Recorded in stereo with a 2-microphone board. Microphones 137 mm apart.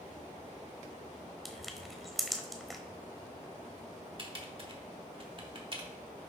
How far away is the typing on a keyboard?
About 1.5 m.